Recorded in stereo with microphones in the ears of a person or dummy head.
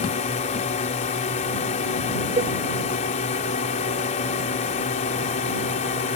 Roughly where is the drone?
Left.